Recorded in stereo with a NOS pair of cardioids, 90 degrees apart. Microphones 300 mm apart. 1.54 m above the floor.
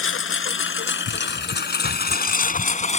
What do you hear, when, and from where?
0.0 s a lawn mower: 50° left; by 3.0 s 25° left